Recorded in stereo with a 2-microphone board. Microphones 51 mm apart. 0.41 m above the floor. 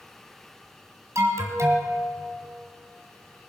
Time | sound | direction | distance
1.1 | an alarm | 70° right (ahead or behind) | 2 m